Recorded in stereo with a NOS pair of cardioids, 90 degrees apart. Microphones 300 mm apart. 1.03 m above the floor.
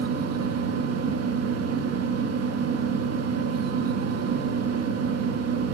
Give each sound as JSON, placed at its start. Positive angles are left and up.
{"t": 0.0, "sound": "a fan", "azimuth_deg": -60, "distance_m": 0.7}